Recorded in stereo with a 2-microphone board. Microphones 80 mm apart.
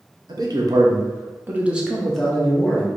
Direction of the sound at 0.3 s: 60° right (ahead or behind).